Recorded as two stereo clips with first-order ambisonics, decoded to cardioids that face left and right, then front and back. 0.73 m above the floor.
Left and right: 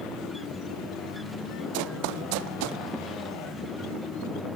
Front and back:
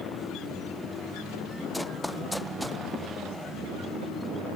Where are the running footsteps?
90° right; by 2.8 s 85° right.